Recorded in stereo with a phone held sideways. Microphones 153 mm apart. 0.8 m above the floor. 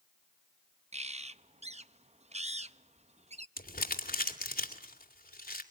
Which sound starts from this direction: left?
Crumpling, at 3.6 s.